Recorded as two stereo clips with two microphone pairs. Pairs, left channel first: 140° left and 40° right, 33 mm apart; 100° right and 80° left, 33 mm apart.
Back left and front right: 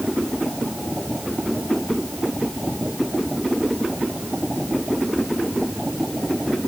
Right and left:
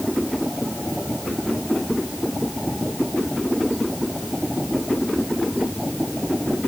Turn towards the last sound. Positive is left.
No sound to turn to.